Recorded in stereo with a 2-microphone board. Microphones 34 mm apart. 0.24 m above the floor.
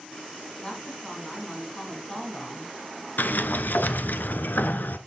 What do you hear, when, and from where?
0.6 s a woman speaking: 20° left (ahead or behind), 2 m
3.2 s a sliding door: 75° left (ahead or behind), 0.6 m